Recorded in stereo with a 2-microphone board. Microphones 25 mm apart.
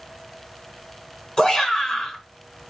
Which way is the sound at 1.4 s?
20° left (ahead or behind).